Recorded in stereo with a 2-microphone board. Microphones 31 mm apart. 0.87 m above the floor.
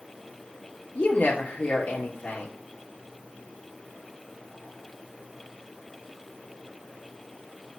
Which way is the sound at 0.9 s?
75° left (ahead or behind).